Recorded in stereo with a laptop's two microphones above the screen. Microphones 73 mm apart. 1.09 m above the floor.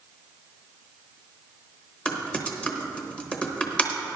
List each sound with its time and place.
2.0 s typing on a keyboard: 15° left (ahead or behind), 0.9 m